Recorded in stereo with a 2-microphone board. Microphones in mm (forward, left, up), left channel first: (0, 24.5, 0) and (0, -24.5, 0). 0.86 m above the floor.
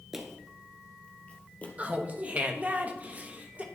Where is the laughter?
30° right (ahead or behind), 0.8 m.